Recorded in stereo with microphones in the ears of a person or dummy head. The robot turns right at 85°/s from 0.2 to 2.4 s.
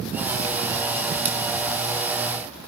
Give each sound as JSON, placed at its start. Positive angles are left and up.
{"t": 1.2, "sound": "scissors", "side_deg": -10, "distance_m": 7.5}